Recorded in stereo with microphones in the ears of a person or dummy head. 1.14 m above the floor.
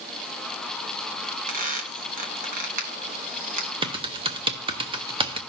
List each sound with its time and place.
1.5 s a squeak: 40° right (ahead or behind), 0.9 m
3.8 s typing on a keyboard: 25° right (ahead or behind), 0.5 m